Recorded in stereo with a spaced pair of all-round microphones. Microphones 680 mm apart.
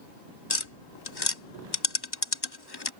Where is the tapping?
35° left (ahead or behind).